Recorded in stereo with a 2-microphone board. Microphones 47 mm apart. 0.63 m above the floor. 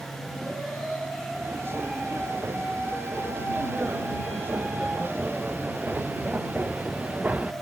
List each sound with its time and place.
1.3 s footsteps: 65° right (ahead or behind); by 7.5 s 35° right (ahead or behind)